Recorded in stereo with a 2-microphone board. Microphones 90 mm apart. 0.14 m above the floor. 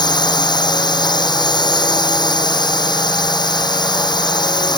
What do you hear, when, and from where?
0.0 s a drone: 55° left (ahead or behind)